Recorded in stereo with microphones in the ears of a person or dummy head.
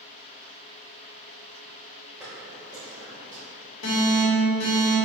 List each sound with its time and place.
2.2 s footsteps: 5° right (ahead or behind), 1.9 m; by 3.4 s 30° right (ahead or behind), 2 m
3.8 s an alarm: 70° left (ahead or behind), 1.4 m